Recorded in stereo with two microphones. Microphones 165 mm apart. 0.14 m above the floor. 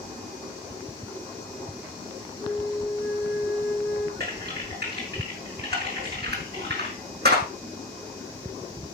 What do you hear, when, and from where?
2.4 s a flute: 10° left (ahead or behind), 3.5 m
4.2 s typing on a keyboard: 75° right (ahead or behind), 5 m